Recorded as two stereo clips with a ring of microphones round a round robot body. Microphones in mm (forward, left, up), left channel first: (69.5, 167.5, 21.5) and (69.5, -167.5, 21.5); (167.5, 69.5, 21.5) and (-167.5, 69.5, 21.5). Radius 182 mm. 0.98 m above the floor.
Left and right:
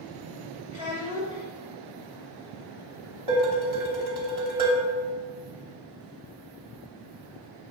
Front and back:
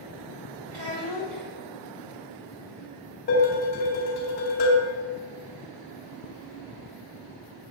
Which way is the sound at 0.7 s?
170° right.